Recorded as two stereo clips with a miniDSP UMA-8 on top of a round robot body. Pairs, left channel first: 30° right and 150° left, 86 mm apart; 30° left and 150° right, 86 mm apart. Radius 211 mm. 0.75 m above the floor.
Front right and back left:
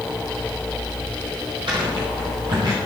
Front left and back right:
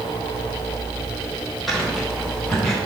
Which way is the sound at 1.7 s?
115° left.